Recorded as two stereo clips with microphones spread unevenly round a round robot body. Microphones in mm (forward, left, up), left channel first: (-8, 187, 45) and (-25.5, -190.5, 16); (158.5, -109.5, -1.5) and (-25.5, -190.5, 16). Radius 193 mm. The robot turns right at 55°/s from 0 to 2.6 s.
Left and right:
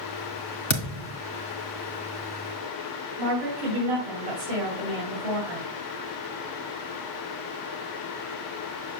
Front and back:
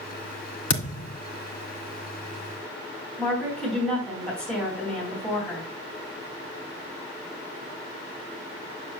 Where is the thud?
20° left, 1.5 m; by 1.2 s 50° left, 1.5 m.